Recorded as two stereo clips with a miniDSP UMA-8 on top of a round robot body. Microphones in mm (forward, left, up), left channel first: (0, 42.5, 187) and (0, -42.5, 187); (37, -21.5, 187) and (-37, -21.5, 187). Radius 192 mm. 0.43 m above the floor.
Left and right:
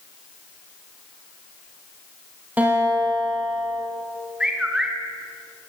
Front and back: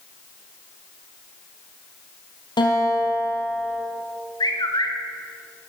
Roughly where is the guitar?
Ahead.